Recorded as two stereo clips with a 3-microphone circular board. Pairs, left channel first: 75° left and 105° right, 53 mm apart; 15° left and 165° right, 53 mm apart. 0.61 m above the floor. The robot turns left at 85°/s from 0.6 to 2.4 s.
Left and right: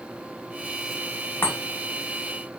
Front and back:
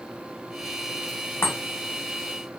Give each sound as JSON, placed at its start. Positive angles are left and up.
{"t": 1.4, "sound": "a chime", "azimuth_deg": 30, "distance_m": 1.5}